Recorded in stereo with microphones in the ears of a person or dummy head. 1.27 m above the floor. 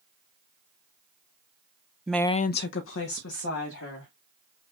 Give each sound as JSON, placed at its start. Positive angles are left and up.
{"t": 2.1, "sound": "a woman speaking", "side_deg": 0, "distance_m": 0.6}